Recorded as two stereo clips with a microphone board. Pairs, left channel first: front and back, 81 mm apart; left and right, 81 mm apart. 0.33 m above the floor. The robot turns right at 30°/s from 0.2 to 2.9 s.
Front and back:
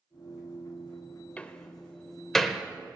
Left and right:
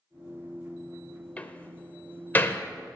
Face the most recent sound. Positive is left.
turn(degrees=95)